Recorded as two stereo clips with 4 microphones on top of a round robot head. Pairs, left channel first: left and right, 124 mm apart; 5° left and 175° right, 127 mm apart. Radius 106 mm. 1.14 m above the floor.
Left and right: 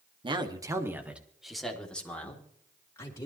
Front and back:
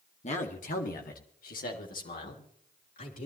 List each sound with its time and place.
0.2 s a man speaking: 40° right, 2 m; by 3.3 s 25° left, 4.5 m